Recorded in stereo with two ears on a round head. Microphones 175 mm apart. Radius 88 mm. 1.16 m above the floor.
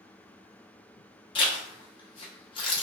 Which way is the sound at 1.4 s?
25° left (ahead or behind).